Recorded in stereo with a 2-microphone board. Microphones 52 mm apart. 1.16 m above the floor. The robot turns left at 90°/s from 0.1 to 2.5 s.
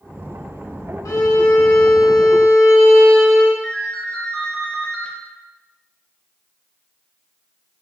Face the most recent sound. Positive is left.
turn(degrees=10)  # may be behind; listen again after turning